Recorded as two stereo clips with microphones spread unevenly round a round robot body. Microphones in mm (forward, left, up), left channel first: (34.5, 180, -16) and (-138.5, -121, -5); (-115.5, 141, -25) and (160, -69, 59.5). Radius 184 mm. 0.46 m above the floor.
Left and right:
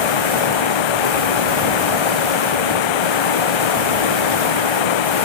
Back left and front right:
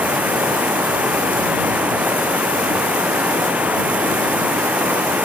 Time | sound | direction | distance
0.0 | running water | 50° left | ?